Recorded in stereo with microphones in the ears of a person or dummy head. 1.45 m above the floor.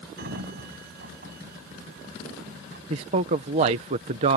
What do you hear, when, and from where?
0.2 s a sliding door: 50° right (ahead or behind)
2.9 s a man speaking: 35° right (ahead or behind)